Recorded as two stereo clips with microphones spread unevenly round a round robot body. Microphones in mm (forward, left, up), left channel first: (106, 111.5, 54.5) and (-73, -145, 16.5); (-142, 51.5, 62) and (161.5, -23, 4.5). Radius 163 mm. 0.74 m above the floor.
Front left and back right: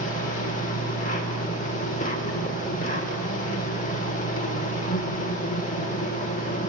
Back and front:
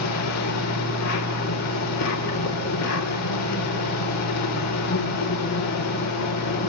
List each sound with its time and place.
0.0 s an insect: 125° left, 2.5 m